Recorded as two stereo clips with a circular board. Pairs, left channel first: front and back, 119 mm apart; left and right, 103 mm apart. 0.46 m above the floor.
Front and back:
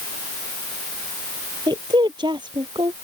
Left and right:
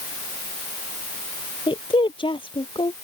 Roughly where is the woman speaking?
Behind left.